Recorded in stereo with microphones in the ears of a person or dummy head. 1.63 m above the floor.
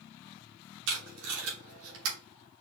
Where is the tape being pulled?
75° right (ahead or behind), 2.5 m.